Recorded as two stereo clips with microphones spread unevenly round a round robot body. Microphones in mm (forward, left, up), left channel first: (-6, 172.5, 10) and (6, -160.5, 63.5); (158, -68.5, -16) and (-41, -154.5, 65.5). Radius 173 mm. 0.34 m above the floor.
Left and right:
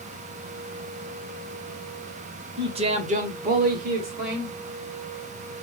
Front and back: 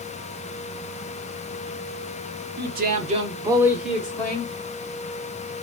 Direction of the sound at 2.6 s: 165° right.